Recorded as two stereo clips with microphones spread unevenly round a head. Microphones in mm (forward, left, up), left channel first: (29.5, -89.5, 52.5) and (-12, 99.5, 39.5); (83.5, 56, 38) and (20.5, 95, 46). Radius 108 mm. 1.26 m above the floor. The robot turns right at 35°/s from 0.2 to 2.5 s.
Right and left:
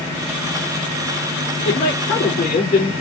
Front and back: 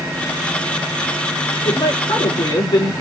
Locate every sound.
1.6 s a woman speaking: 55° right, 4.5 m; by 2.9 s 25° right, 4.5 m